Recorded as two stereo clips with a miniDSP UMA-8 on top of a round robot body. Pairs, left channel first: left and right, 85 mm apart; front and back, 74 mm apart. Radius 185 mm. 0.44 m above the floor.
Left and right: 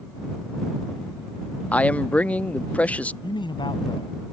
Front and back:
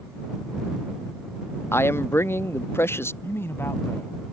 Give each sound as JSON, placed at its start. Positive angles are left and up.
{"t": 1.7, "sound": "a man speaking", "azimuth_deg": 25}
{"t": 3.2, "sound": "a man speaking", "azimuth_deg": 60}